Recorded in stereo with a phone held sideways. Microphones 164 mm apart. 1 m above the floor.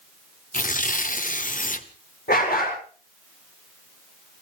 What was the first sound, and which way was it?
Tearing paper, 55° left (ahead or behind).